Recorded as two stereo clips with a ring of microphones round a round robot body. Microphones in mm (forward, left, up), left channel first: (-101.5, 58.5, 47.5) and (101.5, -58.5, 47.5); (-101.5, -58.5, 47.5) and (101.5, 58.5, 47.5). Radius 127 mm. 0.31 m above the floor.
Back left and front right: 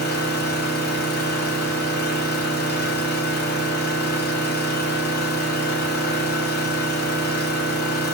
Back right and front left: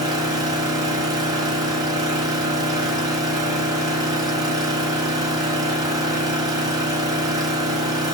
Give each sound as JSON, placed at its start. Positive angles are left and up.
{"t": 0.0, "sound": "an engine running", "azimuth_deg": 105, "distance_m": 0.9}